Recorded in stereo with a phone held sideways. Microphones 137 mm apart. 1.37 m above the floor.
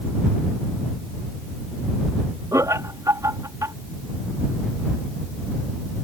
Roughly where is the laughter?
Right.